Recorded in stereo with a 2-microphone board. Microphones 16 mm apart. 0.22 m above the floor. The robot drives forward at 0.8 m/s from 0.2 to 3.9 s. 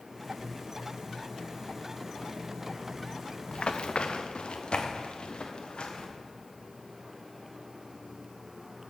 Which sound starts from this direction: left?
Running footsteps, at 3.5 s.